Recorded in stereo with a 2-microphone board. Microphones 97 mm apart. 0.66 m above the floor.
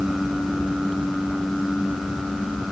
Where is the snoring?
I don't hear snoring.